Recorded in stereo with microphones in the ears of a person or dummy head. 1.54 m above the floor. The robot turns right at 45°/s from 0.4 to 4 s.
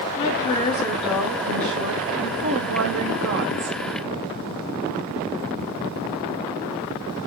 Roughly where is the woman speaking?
Behind left.